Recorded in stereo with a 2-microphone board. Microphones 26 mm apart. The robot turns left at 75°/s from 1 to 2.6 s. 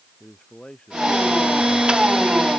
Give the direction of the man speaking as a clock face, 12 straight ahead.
7 o'clock.